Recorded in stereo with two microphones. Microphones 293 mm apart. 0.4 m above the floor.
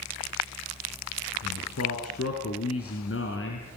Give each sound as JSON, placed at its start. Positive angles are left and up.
{"t": 1.4, "sound": "a man speaking", "side_deg": 65, "distance_m": 5.0}